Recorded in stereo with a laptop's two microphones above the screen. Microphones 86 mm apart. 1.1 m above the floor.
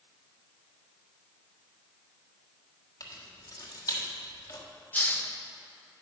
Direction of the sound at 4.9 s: 20° left (ahead or behind).